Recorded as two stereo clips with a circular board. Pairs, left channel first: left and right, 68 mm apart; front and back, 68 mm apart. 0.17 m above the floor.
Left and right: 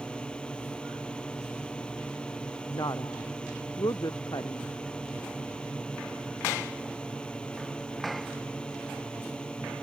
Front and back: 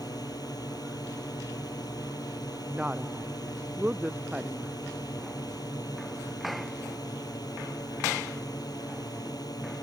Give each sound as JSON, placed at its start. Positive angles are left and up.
{"t": 0.0, "sound": "a drone", "azimuth_deg": 15}
{"t": 2.7, "sound": "a woman speaking", "azimuth_deg": 110}